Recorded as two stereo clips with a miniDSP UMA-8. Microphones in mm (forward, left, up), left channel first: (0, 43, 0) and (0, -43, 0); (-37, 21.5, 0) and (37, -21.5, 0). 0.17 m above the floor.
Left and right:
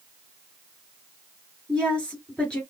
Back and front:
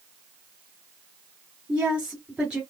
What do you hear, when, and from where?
1.7 s a woman speaking: 35° left, 1.7 m